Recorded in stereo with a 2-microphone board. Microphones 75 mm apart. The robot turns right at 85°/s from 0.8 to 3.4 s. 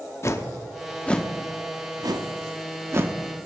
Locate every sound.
0.2 s a whoosh: 40° left (ahead or behind), 0.8 m; by 3.2 s 20° right (ahead or behind), 0.8 m